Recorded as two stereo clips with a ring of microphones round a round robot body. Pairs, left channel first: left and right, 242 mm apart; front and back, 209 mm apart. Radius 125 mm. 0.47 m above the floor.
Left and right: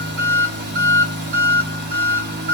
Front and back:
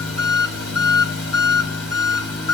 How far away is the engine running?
About 1.4 m.